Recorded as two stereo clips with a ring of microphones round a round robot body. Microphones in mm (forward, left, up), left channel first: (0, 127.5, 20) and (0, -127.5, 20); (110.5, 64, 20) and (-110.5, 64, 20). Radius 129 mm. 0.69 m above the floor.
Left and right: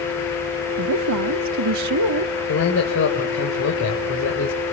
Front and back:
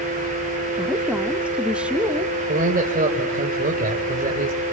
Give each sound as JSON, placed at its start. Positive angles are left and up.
{"t": 0.8, "sound": "a woman speaking", "azimuth_deg": -95, "distance_m": 1.1}
{"t": 2.5, "sound": "a man speaking", "azimuth_deg": 130, "distance_m": 3.5}